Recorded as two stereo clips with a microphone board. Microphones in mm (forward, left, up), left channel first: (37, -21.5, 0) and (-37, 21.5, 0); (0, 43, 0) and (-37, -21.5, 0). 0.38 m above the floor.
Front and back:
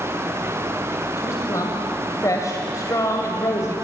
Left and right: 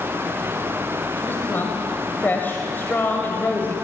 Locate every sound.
1.2 s a woman speaking: 5° left, 2 m